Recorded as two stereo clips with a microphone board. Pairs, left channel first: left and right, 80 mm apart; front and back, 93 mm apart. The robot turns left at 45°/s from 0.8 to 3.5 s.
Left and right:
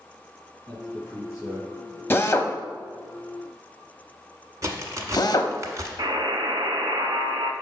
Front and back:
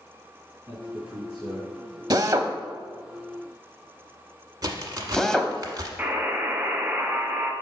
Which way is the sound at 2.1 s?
145° left.